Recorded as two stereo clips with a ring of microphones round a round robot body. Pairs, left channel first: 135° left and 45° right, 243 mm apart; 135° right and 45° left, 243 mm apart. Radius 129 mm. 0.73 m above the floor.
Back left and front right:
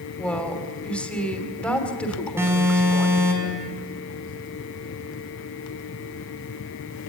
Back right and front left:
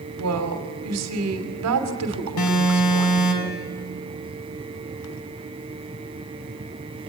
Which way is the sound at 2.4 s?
125° right.